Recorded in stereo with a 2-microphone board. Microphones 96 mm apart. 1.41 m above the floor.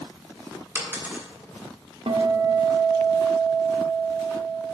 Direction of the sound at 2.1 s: 70° right (ahead or behind).